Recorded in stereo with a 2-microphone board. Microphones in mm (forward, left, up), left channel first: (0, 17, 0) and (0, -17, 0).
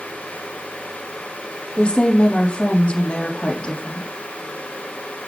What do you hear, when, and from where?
1.8 s a woman speaking: 35° left (ahead or behind), 5 m